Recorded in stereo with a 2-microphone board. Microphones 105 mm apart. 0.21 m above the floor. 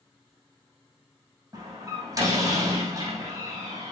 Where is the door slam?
35° right (ahead or behind), 5.5 m.